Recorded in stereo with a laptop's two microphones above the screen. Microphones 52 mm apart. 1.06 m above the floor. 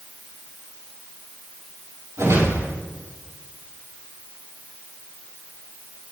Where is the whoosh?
85° right, 5.5 m.